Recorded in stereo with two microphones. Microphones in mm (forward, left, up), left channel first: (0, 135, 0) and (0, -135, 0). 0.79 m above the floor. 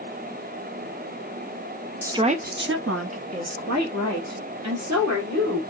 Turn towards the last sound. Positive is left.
turn(degrees=-75)  # may be behind; listen again after turning